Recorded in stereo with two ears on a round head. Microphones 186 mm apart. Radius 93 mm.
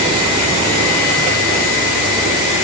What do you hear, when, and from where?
Only background noise.